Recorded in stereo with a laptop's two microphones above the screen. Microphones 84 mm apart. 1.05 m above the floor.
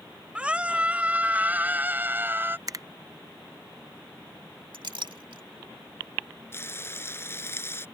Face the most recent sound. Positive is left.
turn(degrees=30)  # may be behind; listen again after turning